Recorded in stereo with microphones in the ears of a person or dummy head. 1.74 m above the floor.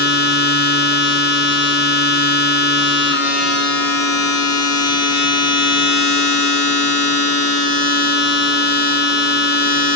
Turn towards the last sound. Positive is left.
turn(degrees=55)  # may be behind; listen again after turning